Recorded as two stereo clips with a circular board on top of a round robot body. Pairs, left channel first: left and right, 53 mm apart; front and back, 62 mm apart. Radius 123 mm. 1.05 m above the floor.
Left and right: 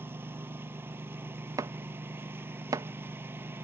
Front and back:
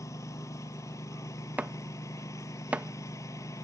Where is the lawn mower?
45° right.